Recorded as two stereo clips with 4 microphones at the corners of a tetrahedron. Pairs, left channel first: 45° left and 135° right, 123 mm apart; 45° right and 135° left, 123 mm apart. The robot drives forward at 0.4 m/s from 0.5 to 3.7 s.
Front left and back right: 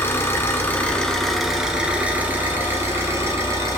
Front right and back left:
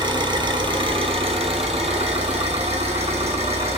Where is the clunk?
I don't hear a clunk.